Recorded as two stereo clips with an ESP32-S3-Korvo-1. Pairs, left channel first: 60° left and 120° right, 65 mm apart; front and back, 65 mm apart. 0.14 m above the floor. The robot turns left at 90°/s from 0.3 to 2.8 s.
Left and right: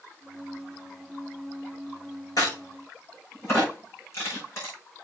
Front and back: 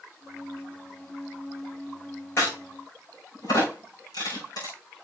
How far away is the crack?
About 6 m.